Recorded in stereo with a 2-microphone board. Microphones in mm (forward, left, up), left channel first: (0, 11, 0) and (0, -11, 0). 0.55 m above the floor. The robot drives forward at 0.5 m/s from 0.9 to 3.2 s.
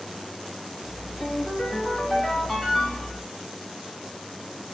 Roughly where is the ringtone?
Left.